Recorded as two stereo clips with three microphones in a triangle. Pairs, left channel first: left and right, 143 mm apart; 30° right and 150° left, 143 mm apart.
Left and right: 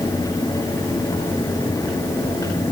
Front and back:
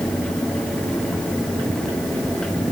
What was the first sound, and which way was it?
Only background noise.